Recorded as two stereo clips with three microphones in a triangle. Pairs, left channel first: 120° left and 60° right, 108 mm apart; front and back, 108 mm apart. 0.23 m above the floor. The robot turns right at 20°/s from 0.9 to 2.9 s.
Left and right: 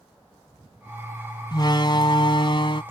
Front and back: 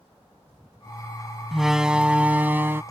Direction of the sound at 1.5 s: 90° left.